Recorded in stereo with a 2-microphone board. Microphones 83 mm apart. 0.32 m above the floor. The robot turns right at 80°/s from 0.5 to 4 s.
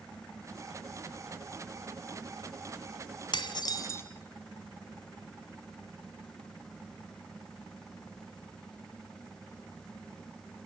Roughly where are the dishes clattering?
Left.